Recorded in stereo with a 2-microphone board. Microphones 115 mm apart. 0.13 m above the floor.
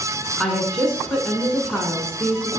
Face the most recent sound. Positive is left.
turn(degrees=5)  # may be behind; listen again after turning